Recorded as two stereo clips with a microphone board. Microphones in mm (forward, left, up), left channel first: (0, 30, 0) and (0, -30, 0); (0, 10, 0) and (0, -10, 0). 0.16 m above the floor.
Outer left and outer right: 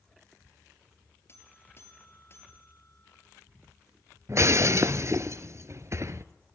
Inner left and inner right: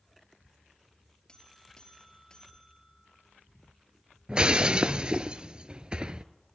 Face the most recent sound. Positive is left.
turn(degrees=-50)  # may be behind; listen again after turning